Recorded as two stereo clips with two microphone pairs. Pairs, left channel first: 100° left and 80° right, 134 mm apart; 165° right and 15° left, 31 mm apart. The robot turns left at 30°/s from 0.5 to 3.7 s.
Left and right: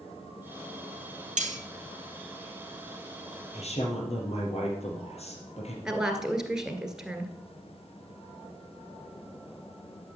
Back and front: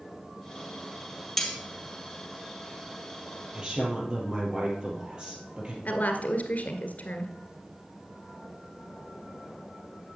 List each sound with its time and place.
1.4 s cutlery clinking: 95° right, 1.8 m; by 1.6 s 100° right, 1.8 m
3.5 s a woman speaking: 75° left, 4 m; by 5.8 s 70° left, 4 m
5.8 s a woman speaking: 165° right, 1.9 m